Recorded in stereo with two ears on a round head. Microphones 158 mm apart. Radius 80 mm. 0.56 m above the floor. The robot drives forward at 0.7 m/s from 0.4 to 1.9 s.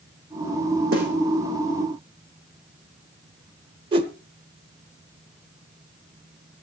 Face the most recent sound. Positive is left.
turn(degrees=-25)  # may be behind; listen again after turning